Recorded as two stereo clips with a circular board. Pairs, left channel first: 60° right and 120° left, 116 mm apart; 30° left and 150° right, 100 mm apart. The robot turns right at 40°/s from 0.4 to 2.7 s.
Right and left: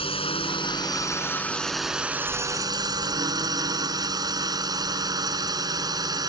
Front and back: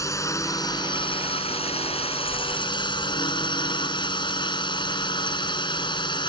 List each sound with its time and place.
0.0 s a drone: 25° right; by 6.3 s 65° left